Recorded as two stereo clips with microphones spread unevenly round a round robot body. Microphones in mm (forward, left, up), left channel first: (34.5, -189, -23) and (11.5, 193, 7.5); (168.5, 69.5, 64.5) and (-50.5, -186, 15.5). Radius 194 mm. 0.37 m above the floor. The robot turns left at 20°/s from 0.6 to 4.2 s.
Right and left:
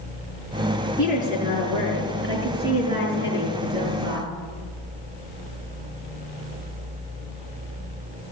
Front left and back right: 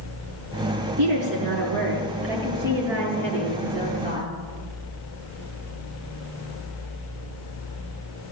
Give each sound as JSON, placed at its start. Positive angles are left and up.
{"t": 1.0, "sound": "a woman speaking", "azimuth_deg": 180, "distance_m": 5.5}